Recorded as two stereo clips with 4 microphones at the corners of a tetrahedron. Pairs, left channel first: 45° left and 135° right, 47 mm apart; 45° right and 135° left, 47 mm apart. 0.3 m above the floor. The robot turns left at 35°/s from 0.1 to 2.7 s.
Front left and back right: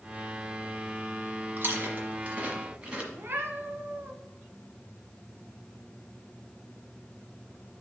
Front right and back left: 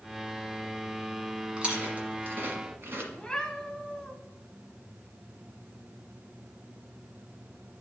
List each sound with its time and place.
1.6 s chewing: 160° right, 1.4 m; by 3.0 s 160° left, 1.4 m
3.1 s a cat meowing: 120° right, 1.0 m